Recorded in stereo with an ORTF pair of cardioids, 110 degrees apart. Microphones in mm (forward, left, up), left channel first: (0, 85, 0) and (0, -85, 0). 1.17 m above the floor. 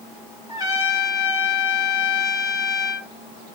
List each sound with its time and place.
0.5 s a trumpet: 25° right, 3.5 m